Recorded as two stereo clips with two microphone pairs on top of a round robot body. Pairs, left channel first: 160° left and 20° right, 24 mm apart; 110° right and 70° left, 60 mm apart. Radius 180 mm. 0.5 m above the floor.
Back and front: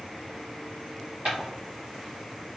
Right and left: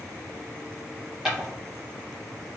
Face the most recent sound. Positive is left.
turn(degrees=-15)